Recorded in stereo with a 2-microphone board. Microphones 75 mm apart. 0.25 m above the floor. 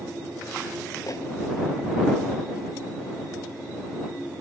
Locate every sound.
1.1 s a microwave: 55° left (ahead or behind)